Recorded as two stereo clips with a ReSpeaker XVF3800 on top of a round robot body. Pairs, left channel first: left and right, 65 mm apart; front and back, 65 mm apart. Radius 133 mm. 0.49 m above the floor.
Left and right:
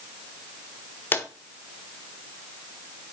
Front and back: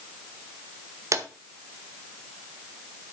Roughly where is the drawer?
Behind left.